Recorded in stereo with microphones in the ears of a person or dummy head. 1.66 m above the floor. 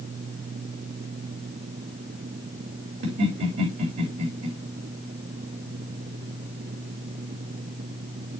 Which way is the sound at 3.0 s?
55° right (ahead or behind).